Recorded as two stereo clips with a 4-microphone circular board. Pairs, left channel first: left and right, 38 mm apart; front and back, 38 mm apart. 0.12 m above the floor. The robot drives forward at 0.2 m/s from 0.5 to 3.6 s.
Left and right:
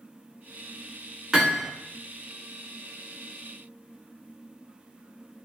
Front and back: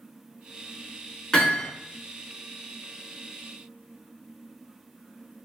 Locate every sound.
1.3 s hammering: 40° right, 1.0 m; by 1.7 s 50° right, 1.0 m